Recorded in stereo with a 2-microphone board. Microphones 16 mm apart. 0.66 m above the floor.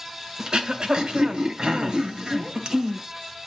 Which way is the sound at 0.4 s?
70° right (ahead or behind).